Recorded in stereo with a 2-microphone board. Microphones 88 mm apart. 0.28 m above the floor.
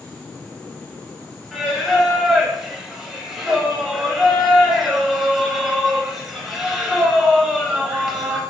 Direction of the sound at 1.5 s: 5° right (ahead or behind).